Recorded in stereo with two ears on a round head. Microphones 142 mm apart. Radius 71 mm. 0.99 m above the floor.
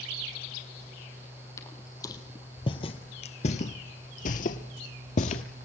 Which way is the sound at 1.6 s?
20° left (ahead or behind).